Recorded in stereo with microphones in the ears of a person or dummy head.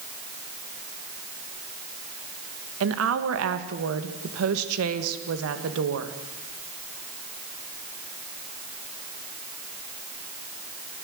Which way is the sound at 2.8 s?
80° right.